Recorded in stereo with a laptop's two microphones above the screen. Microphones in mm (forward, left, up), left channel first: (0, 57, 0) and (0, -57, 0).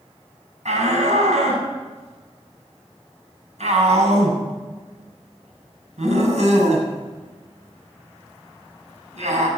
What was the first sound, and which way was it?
A shout, 80° right.